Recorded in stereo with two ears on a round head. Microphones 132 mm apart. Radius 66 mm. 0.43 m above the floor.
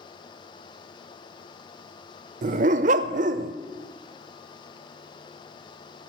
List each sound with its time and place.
2.4 s a dog barking: 55° right (ahead or behind), 0.5 m